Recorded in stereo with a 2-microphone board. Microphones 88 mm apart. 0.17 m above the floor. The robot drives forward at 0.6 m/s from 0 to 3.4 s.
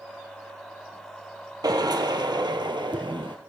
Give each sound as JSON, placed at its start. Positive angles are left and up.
{"t": 1.6, "sound": "a drill", "side_deg": -50, "distance_m": 3.0}